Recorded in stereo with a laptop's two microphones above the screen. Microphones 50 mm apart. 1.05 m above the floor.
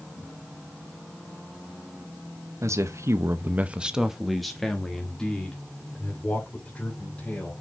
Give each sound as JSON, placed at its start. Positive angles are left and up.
{"t": 2.6, "sound": "a man speaking", "side_deg": -80, "distance_m": 0.9}